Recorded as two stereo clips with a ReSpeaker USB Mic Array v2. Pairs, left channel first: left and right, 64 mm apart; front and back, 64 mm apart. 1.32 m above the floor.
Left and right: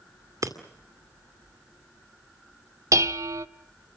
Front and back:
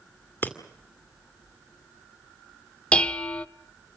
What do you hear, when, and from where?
0.4 s breaking glass: 60° right, 2 m
2.9 s dishes clattering: 70° right, 0.7 m